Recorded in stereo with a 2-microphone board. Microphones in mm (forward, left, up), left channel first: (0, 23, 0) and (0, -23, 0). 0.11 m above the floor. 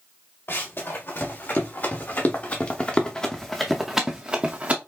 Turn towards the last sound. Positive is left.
turn(degrees=-40)  # may be behind; listen again after turning